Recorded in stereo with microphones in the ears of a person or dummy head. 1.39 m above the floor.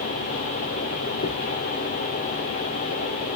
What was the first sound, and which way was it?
A dropped coin, 55° left (ahead or behind).